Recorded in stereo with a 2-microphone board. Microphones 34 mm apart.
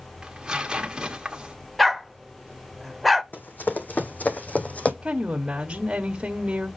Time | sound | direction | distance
0.2 | tearing paper | 20° right (ahead or behind) | 1.5 m
1.8 | a dog barking | 5° left (ahead or behind) | 0.6 m
3.3 | running footsteps | 65° left (ahead or behind) | 1.6 m
5.0 | a woman speaking | 30° right (ahead or behind) | 1.2 m